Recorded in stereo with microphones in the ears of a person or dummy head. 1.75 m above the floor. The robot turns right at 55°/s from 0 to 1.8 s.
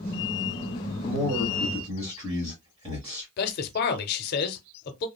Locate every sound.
1.0 s a man speaking: 160° left, 1.7 m; by 3.3 s 155° right, 1.7 m
3.4 s a man speaking: 55° left (ahead or behind), 0.7 m